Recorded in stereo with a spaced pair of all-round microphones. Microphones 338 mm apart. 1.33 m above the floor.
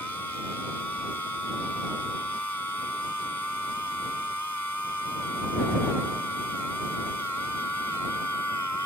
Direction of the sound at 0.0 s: 55° right (ahead or behind).